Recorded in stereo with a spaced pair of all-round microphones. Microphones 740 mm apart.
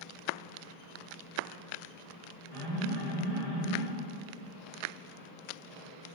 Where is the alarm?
55° left (ahead or behind), 3 m.